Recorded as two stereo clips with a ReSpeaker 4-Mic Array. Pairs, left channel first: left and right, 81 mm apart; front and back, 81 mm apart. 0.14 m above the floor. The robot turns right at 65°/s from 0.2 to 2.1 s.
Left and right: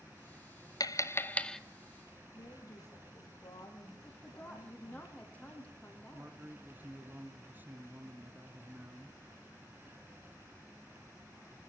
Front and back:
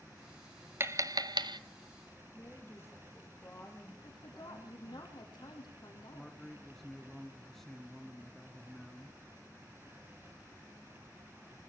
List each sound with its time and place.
0.8 s tapping: 125° left, 0.6 m; by 1.6 s 175° left, 0.6 m
2.3 s a woman speaking: 55° left, 5 m
4.0 s a woman speaking: 15° left, 5 m
6.1 s a man speaking: 80° right, 1.3 m